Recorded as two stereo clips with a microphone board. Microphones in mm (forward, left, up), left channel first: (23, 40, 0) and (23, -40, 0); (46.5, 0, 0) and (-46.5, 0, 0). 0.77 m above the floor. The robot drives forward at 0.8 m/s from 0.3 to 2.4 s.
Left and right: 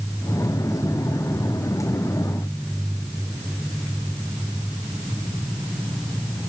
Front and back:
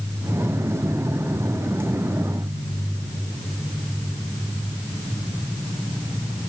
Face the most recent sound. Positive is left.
No sound to turn to.